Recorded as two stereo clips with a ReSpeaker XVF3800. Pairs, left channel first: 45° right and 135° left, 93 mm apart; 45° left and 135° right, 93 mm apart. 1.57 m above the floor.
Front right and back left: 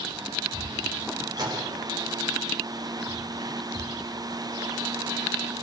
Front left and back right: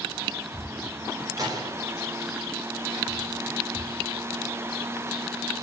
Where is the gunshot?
Straight behind, 4.5 m.